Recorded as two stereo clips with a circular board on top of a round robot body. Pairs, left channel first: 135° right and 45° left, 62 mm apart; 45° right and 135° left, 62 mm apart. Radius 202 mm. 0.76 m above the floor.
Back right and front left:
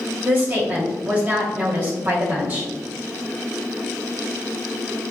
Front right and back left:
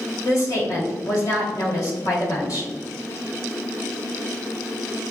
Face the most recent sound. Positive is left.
turn(degrees=-15)